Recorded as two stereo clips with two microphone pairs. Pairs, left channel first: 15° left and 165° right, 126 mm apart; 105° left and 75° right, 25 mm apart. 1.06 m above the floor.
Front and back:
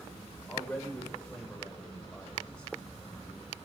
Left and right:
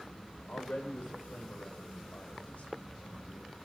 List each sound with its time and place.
0.5 s a man speaking: 95° left, 3.5 m; by 3.5 s 100° left, 5 m